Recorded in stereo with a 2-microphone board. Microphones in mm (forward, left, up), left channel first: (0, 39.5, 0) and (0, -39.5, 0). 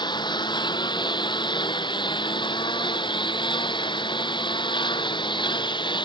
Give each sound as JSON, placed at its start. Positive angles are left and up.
{"t": 0.0, "sound": "a lawn mower", "side_deg": 70}